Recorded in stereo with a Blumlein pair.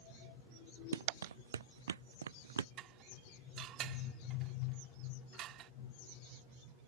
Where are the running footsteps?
65° right; by 2.7 s 70° right.